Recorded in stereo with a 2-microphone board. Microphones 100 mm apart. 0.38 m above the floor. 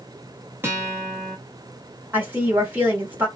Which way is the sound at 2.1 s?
20° right (ahead or behind).